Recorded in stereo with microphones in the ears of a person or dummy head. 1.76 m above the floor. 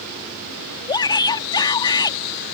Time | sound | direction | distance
0.9 | a shout | 25° left (ahead or behind) | ?